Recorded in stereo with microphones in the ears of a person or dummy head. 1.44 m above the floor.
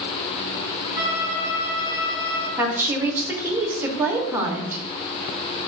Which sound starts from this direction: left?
A violin, at 0.9 s.